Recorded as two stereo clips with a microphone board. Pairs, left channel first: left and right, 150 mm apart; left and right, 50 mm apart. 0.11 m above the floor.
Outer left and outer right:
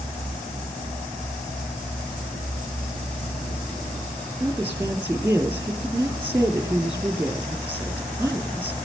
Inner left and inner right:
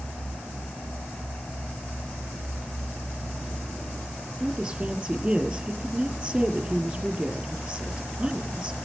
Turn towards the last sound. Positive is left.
turn(degrees=-15)  # may be behind; listen again after turning